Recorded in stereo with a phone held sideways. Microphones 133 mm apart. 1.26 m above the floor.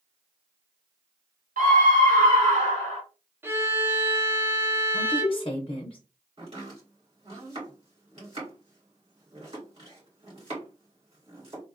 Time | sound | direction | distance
1.6 | a scream | 85° right | 1.3 m
3.4 | a violin | 15° right (ahead or behind) | 0.5 m
4.9 | a woman speaking | 45° left (ahead or behind) | 0.7 m
6.4 | chopping | 45° right (ahead or behind) | 2.5 m